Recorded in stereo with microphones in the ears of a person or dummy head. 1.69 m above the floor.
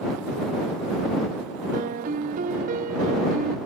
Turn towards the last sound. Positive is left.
turn(degrees=-45)  # may be behind; listen again after turning